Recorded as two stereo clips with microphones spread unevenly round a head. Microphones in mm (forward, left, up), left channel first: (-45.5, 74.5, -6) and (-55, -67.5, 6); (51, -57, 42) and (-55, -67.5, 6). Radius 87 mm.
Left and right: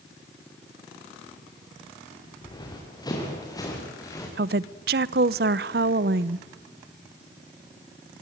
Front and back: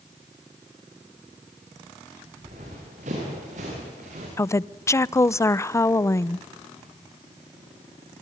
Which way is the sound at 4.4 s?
65° right.